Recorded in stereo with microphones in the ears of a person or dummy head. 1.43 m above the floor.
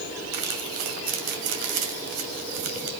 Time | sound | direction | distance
0.3 | crumpling | 40° right (ahead or behind) | 2.5 m